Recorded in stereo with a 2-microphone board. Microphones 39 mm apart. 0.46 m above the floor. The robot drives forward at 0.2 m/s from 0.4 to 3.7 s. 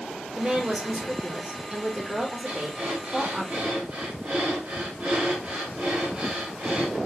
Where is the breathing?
40° right (ahead or behind), 1.6 m.